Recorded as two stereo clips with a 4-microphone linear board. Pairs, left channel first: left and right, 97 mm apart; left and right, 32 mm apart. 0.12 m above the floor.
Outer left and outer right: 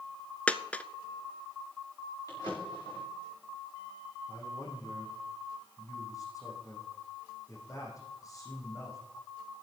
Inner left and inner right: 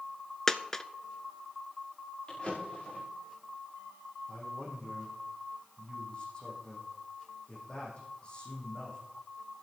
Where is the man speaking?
40° left (ahead or behind), 6 m.